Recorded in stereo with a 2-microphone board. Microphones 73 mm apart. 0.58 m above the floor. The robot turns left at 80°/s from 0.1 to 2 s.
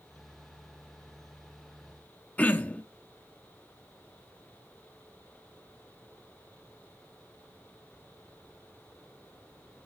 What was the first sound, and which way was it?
Throat clearing, 20° left (ahead or behind).